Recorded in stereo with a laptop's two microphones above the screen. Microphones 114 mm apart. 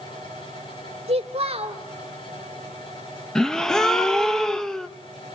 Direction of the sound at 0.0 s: 45° left (ahead or behind).